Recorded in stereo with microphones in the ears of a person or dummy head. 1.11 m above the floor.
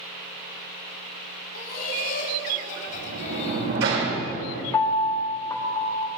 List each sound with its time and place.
1.5 s laughter: 50° left (ahead or behind), 4 m; by 3.8 s 30° left (ahead or behind), 3 m
2.9 s a sliding door: 75° right (ahead or behind), 5.5 m
4.7 s a piano: 10° left (ahead or behind), 0.7 m